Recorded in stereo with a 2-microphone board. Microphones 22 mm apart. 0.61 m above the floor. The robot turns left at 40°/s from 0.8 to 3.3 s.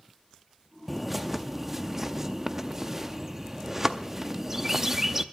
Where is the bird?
5° right (ahead or behind), 0.6 m; by 5.2 s 15° right (ahead or behind), 0.6 m.